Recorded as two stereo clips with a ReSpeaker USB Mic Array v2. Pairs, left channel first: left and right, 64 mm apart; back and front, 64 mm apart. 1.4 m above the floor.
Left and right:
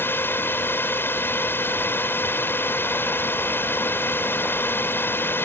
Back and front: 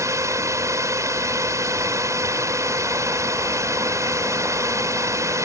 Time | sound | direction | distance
0.0 | a drone | 35° left | ?